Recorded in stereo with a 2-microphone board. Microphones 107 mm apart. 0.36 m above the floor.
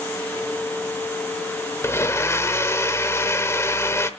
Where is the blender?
25° left (ahead or behind), 0.7 m.